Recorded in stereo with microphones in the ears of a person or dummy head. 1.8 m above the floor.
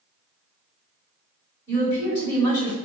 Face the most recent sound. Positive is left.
turn(degrees=20)  # may be behind; listen again after turning